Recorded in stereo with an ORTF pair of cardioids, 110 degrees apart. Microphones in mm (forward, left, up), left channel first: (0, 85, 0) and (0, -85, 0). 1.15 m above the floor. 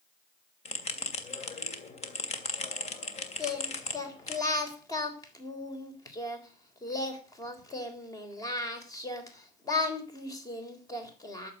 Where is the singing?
20° left, 3.5 m.